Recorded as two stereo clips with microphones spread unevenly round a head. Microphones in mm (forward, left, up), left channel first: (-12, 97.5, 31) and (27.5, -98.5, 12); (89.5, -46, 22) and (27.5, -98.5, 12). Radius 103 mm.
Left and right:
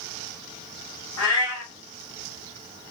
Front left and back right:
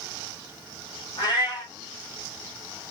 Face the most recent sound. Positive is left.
turn(degrees=90)